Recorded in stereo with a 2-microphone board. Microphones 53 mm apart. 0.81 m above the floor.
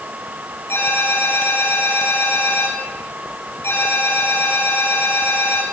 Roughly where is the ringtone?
Left.